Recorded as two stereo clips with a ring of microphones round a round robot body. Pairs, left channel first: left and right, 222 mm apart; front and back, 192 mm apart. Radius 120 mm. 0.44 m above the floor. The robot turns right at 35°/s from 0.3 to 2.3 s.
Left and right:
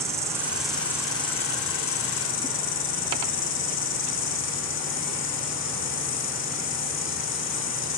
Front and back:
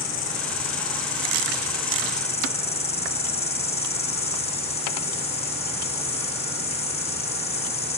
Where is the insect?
15° right, 2.5 m; by 8.0 s 55° left, 2.5 m.